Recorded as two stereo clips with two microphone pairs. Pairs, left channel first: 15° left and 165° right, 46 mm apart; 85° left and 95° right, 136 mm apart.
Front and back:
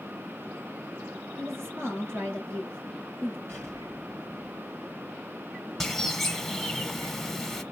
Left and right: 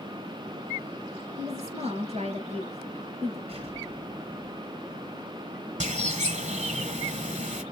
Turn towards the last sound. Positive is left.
turn(degrees=-70)